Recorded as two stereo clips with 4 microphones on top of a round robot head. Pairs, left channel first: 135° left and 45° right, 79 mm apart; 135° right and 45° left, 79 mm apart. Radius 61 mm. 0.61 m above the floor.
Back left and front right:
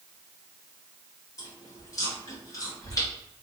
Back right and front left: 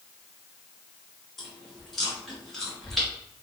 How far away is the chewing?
About 1.7 m.